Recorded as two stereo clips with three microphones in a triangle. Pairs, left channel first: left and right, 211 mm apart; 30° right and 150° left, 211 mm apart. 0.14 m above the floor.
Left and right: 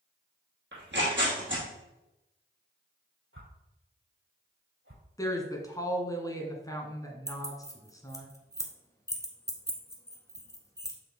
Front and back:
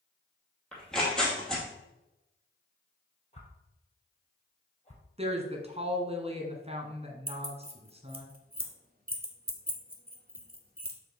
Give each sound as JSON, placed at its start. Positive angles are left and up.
{"t": 0.7, "sound": "tearing paper", "azimuth_deg": -115, "distance_m": 2.5}
{"t": 3.3, "sound": "a whoosh", "azimuth_deg": -90, "distance_m": 2.5}
{"t": 5.2, "sound": "a woman speaking", "azimuth_deg": 145, "distance_m": 1.2}
{"t": 7.3, "sound": "keys jangling", "azimuth_deg": 155, "distance_m": 1.0}